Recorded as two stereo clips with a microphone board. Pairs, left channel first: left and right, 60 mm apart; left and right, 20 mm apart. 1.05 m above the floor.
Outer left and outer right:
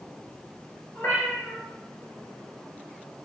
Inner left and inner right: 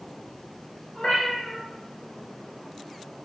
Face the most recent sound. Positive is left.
turn(degrees=40)  # may be behind; listen again after turning